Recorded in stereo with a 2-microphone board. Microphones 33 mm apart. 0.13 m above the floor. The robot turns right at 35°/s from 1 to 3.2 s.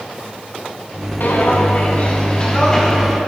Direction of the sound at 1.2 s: 60° left (ahead or behind).